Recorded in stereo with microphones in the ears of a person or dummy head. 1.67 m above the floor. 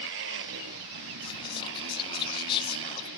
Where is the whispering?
30° left (ahead or behind).